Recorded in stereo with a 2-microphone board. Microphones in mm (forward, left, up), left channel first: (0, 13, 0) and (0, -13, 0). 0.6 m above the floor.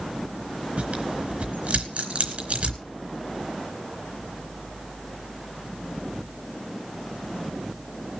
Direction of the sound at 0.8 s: 55° right (ahead or behind).